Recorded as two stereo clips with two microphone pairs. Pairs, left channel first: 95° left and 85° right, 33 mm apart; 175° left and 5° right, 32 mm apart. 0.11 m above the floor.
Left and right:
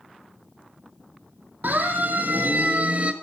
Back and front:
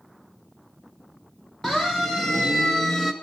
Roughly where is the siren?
Right.